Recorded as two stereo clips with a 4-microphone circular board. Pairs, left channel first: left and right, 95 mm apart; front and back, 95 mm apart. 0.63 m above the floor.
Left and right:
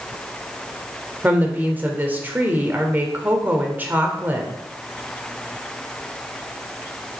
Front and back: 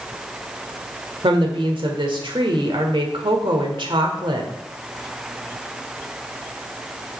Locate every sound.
1.2 s a woman speaking: 160° right, 1.6 m